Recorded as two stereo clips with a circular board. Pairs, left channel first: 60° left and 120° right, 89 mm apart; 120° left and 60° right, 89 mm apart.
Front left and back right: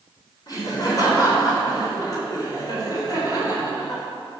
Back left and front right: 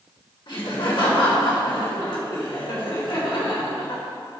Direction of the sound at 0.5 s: 100° left.